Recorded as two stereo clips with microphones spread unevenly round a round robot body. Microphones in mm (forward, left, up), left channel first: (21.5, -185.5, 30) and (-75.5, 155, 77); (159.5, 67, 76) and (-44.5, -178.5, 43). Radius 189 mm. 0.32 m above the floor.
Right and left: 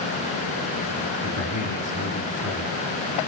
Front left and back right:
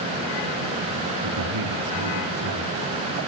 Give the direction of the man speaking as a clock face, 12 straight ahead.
4 o'clock.